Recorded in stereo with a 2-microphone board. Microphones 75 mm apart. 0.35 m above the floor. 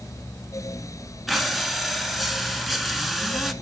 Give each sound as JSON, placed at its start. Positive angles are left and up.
{"t": 1.3, "sound": "breathing", "side_deg": 0, "distance_m": 0.9}